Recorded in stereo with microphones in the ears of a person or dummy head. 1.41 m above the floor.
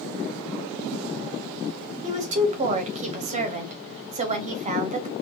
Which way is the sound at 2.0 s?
35° right (ahead or behind).